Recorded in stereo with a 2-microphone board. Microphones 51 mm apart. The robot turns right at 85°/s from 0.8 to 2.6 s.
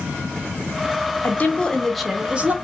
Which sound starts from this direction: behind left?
A woman speaking, at 1.2 s.